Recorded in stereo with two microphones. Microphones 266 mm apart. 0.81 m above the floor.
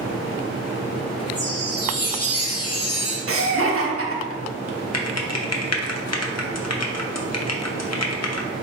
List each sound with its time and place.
1.4 s a chime: 60° left (ahead or behind), 0.9 m
3.3 s laughter: 55° right (ahead or behind), 0.8 m
4.9 s typing on a keyboard: 70° left (ahead or behind), 0.5 m